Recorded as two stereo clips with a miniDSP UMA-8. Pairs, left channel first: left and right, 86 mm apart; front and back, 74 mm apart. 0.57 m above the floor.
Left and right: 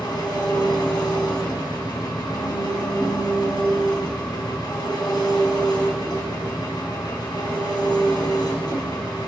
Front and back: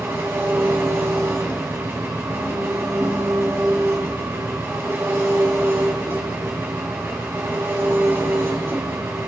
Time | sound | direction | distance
0.0 | an engine running | 125° left | 2.5 m